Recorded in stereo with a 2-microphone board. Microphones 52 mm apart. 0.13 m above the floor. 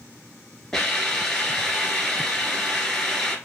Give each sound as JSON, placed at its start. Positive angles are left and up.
{"t": 0.7, "sound": "a hiss", "side_deg": 10, "distance_m": 2.0}